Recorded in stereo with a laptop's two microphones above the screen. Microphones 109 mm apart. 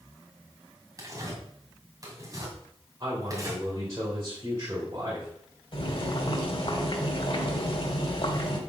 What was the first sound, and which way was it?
Tearing paper, 30° right (ahead or behind).